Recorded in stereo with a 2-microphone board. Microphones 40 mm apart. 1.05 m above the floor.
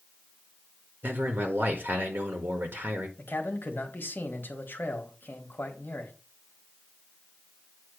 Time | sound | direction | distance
1.0 | a man speaking | 60° right (ahead or behind) | 1.3 m
3.2 | a man speaking | 60° left (ahead or behind) | 1.4 m